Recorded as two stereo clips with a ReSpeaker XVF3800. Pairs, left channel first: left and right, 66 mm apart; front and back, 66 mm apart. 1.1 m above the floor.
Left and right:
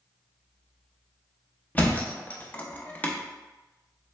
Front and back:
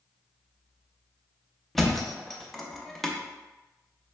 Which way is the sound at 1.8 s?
75° left.